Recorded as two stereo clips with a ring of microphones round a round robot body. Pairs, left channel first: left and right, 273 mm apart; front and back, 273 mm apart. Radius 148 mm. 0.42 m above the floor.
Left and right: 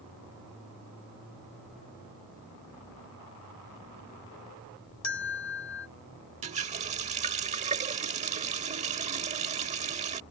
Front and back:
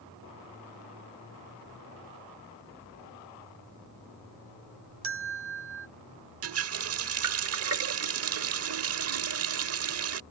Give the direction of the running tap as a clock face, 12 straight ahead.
5 o'clock.